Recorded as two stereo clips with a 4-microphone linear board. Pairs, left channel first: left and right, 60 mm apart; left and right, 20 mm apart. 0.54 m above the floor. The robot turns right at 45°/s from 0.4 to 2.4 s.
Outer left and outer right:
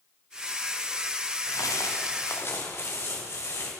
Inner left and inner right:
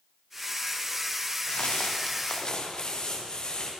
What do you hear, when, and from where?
1.4 s footsteps: 80° left, 4.5 m; by 3.7 s 50° left (ahead or behind), 7 m